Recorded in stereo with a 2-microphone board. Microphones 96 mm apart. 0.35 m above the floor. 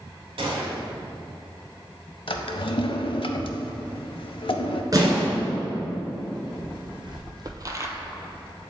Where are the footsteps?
55° right (ahead or behind), 1.5 m; by 7.9 s 30° right (ahead or behind), 0.6 m.